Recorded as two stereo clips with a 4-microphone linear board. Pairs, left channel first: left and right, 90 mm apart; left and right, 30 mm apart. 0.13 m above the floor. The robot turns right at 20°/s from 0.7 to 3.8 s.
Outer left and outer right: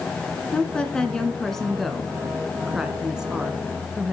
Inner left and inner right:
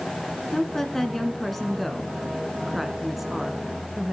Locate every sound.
0.5 s a woman speaking: 10° left (ahead or behind), 1.4 m; by 4.1 s 10° right (ahead or behind), 1.4 m